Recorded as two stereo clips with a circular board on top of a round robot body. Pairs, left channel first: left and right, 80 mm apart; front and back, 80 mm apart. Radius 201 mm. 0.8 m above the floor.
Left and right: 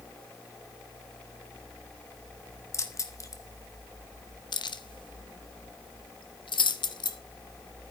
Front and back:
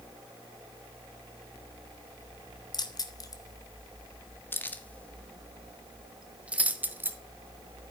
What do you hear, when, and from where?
2.7 s keys jangling: 35° left, 2 m; by 7.2 s 115° left, 2.0 m